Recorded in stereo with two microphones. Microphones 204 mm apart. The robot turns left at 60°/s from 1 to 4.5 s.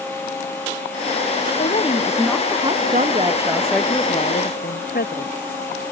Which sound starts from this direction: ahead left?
A woman speaking, at 1.6 s.